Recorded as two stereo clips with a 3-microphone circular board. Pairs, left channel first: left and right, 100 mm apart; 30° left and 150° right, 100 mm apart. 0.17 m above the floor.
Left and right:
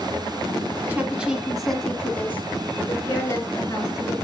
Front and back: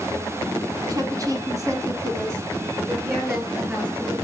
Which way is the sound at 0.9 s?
150° right.